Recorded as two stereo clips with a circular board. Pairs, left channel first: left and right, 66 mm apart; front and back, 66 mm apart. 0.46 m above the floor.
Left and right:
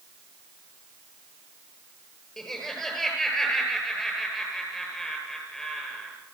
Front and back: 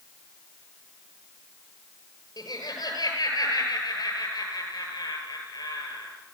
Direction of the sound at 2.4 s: 5° left.